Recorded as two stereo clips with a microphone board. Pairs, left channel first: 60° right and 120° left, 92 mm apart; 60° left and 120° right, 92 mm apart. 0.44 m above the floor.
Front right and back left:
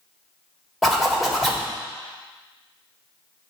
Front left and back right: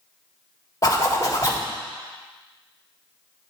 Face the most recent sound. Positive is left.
turn(degrees=30)